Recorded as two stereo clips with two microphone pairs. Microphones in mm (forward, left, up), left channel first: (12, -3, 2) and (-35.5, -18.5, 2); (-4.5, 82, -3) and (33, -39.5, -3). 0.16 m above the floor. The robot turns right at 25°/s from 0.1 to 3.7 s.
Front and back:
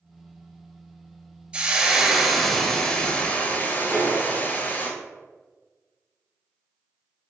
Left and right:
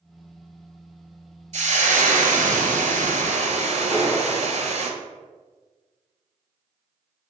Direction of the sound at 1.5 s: 95° right.